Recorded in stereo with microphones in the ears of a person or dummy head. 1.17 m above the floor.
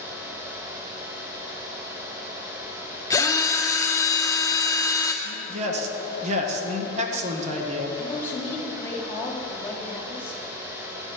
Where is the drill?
20° left (ahead or behind), 0.9 m.